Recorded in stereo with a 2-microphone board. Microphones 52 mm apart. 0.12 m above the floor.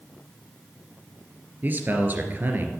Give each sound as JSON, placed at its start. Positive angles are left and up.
{"t": 1.6, "sound": "a man speaking", "side_deg": -40, "distance_m": 2.5}